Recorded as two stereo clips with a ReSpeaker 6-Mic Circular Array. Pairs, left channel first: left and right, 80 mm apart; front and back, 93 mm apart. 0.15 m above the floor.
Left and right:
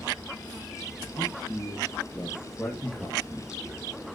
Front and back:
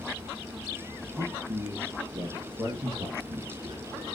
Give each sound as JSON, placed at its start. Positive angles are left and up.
{"t": 1.1, "sound": "a man speaking", "azimuth_deg": 160, "distance_m": 3.5}